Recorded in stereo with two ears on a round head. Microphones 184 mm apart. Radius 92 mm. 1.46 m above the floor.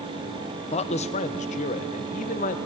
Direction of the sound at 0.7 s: 30° left (ahead or behind).